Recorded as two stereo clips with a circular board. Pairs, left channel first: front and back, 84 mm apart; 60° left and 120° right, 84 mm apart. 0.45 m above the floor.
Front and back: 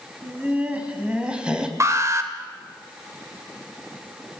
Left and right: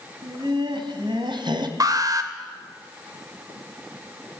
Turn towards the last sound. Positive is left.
turn(degrees=-140)